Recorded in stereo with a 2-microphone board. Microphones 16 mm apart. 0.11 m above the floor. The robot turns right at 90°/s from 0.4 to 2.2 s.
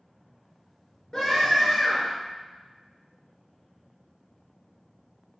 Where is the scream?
80° left, 1.9 m; by 2.1 s 170° left, 1.9 m.